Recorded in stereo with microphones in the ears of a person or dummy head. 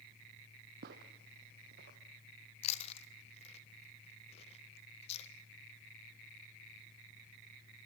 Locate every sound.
0.8 s footsteps: 55° right (ahead or behind), 2.5 m; by 2.0 s 45° right (ahead or behind), 2.5 m
2.6 s chewing: 35° left (ahead or behind), 1.5 m